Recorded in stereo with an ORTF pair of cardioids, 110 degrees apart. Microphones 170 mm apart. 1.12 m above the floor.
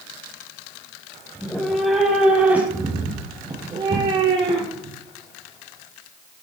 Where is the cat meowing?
5° left, 4 m; by 5.0 s 35° right, 4.5 m.